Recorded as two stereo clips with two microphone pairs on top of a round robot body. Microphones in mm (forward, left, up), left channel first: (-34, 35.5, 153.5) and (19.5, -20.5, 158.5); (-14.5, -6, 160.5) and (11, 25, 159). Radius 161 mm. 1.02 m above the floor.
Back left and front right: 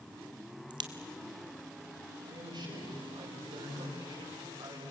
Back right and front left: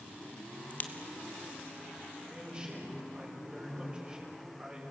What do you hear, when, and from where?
0.7 s a crack: 75° right, 1.1 m
2.3 s a man speaking: 15° right, 6 m